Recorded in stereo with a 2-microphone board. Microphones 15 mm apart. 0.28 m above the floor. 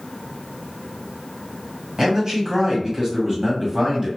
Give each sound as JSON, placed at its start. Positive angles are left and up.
{"t": 2.0, "sound": "a man speaking", "side_deg": -30, "distance_m": 1.5}